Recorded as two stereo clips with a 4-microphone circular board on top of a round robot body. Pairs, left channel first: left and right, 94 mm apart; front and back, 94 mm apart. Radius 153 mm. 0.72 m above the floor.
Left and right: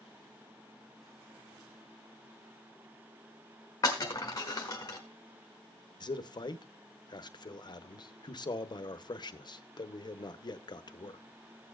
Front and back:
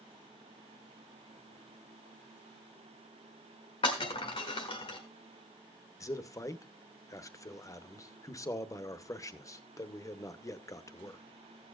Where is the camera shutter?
I don't hear a camera shutter.